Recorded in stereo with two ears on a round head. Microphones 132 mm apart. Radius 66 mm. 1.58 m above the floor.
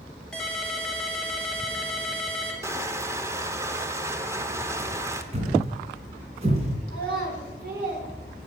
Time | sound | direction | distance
0.3 | a ringtone | 5° left (ahead or behind) | 2 m
2.6 | crushing | 20° right (ahead or behind) | 0.8 m
5.3 | a thud | 45° right (ahead or behind) | 3 m
6.9 | a child speaking | 65° right (ahead or behind) | 4 m